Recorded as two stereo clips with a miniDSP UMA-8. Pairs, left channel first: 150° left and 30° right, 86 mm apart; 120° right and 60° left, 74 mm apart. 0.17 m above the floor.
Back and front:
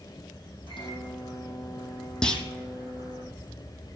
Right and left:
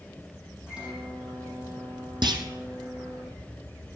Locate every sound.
0.7 s a microwave: 140° left, 7 m
2.2 s a clunk: 70° left, 1.1 m